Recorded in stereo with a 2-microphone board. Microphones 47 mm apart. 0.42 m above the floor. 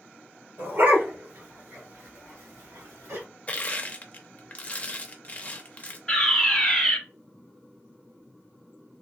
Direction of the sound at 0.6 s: 50° right (ahead or behind).